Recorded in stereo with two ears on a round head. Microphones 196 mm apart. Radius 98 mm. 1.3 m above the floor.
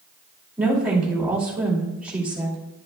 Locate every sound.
0.6 s a woman speaking: 5° right (ahead or behind), 2.5 m